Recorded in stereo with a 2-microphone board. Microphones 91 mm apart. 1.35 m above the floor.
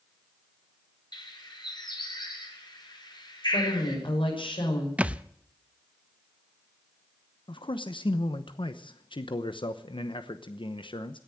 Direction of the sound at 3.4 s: 70° left (ahead or behind).